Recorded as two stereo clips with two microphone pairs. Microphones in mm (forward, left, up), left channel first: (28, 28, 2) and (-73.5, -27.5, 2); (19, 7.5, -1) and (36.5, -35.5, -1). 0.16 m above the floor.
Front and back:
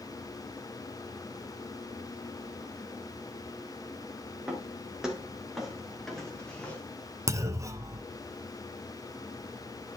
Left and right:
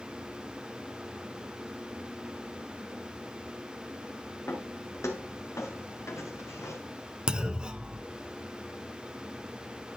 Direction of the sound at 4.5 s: 130° left.